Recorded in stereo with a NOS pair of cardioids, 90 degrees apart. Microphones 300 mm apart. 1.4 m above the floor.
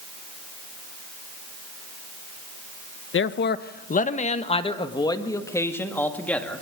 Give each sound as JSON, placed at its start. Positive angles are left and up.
{"t": 3.1, "sound": "a man speaking", "azimuth_deg": 40, "distance_m": 1.2}